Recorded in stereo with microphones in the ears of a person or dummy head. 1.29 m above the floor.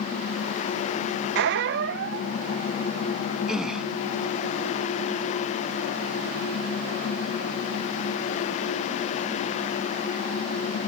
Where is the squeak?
60° right (ahead or behind).